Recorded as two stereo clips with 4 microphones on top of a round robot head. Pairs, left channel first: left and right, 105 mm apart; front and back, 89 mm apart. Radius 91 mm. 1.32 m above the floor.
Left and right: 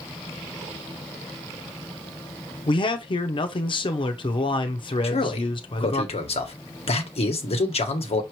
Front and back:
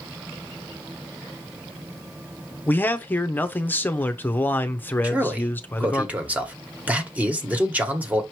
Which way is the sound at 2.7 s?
65° left.